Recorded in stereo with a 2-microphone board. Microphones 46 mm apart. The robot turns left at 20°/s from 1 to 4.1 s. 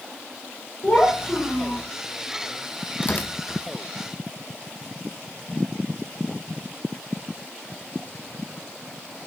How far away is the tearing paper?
About 0.8 m.